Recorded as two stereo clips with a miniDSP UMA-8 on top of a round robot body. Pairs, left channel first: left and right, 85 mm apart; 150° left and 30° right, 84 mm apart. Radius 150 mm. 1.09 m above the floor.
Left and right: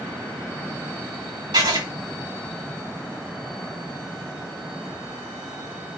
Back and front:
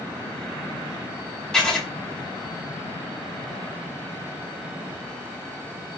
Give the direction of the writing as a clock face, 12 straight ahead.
4 o'clock.